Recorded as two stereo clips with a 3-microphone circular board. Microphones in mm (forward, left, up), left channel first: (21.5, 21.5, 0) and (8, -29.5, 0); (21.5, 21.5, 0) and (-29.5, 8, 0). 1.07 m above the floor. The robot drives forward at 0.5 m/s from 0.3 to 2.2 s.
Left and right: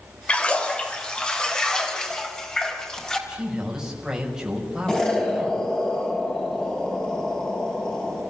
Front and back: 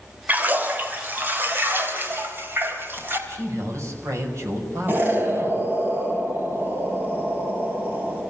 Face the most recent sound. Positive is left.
turn(degrees=150)